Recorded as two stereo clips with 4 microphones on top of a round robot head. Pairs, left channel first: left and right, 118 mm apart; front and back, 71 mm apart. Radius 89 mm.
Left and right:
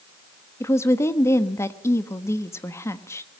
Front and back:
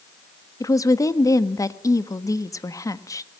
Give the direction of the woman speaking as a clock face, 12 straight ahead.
11 o'clock.